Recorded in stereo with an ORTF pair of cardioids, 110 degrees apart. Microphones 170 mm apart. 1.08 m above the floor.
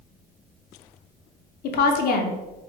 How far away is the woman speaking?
About 0.7 m.